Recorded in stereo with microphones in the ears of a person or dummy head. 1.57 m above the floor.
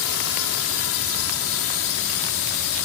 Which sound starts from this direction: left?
A drone, at 0.0 s.